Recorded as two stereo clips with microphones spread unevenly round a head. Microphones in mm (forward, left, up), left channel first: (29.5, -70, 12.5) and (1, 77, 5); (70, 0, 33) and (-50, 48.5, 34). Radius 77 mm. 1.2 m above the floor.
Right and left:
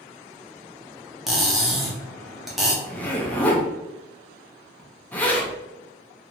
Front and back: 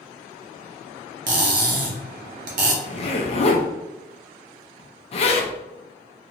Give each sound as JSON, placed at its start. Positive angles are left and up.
{"t": 1.3, "sound": "cutlery clinking", "azimuth_deg": -170, "distance_m": 0.5}
{"t": 2.8, "sound": "a zipper", "azimuth_deg": 0, "distance_m": 0.6}